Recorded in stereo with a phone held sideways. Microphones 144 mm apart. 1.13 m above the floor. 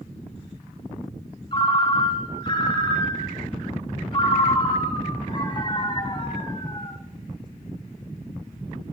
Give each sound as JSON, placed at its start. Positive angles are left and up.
{"t": 1.5, "sound": "a ringtone", "side_deg": 35, "distance_m": 1.9}